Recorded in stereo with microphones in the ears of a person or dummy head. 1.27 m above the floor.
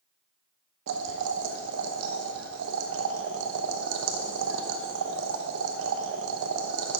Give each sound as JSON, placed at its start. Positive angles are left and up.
{"t": 0.9, "sound": "boiling", "side_deg": -70, "distance_m": 0.9}